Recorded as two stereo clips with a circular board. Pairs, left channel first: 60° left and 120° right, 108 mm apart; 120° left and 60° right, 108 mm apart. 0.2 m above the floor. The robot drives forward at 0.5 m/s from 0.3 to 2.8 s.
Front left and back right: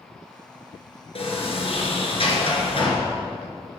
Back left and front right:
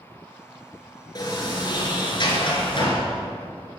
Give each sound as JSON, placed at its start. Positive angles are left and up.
{"t": 1.1, "sound": "a sliding door", "azimuth_deg": 70, "distance_m": 3.0}